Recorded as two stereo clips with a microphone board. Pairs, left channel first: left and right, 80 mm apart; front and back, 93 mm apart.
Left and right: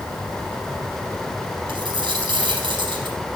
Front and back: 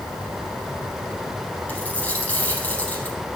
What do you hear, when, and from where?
1.7 s a dropped coin: 75° right, 4 m